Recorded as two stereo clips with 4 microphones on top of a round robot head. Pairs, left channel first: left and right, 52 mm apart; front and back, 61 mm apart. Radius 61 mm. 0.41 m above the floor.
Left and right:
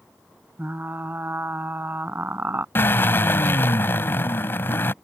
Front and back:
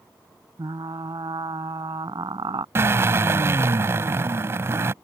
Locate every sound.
0.6 s frying: 140° right
2.8 s a drill: 135° left